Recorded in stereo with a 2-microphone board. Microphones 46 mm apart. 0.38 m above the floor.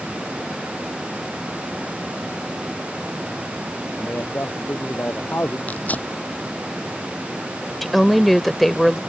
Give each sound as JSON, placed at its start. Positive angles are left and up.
{"t": 4.0, "sound": "a man speaking", "side_deg": 50}
{"t": 5.7, "sound": "tearing paper", "side_deg": 35}
{"t": 7.8, "sound": "a woman speaking", "side_deg": 0}